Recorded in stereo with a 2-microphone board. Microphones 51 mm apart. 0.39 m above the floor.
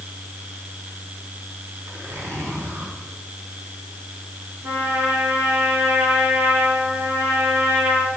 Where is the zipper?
70° right (ahead or behind), 4 m.